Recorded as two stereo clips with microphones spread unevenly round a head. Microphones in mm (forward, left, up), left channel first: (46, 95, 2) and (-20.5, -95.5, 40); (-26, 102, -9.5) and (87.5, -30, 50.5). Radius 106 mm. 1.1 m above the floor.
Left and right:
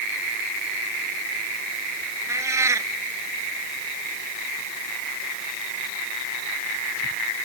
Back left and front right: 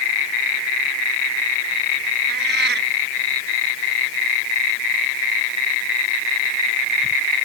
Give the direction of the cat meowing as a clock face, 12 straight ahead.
1 o'clock.